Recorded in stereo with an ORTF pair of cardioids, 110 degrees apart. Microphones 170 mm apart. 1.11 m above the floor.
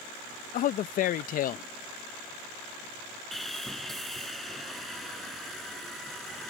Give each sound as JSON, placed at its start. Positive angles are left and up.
{"t": 0.5, "sound": "a man speaking", "azimuth_deg": 55}
{"t": 3.3, "sound": "sawing", "azimuth_deg": 0}